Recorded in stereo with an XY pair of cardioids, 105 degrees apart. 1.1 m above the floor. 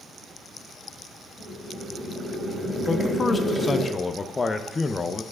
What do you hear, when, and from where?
1.4 s boiling: 10° right, 3 m
2.9 s a man speaking: 25° left, 0.7 m